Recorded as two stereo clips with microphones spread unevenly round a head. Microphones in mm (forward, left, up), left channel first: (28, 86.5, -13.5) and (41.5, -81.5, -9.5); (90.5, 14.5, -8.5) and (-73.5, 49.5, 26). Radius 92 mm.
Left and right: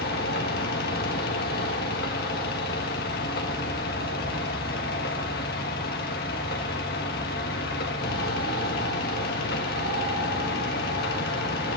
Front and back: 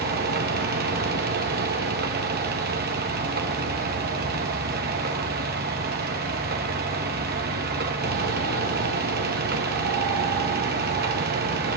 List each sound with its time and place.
0.0 s a fan: 140° left, 1.7 m